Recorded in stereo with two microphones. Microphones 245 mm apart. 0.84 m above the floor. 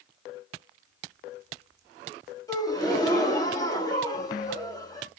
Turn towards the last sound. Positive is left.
turn(degrees=15)  # may be behind; listen again after turning